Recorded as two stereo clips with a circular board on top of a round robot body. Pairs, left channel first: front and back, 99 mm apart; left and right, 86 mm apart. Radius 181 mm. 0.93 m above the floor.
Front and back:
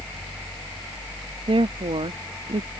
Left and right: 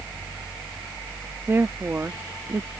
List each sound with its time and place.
1.5 s a woman speaking: 155° right